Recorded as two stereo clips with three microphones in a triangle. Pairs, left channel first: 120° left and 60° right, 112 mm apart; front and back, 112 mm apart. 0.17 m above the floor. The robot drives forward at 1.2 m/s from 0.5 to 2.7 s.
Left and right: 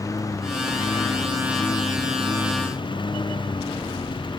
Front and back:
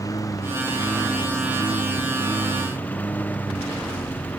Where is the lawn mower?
60° left; by 4.4 s 75° left.